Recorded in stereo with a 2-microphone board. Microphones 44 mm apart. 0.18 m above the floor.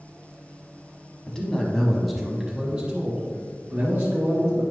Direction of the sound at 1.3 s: 15° left (ahead or behind).